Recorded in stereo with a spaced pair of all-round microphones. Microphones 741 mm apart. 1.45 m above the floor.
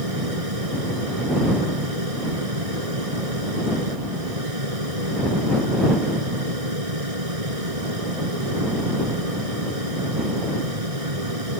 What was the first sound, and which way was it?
A fan, 50° right (ahead or behind).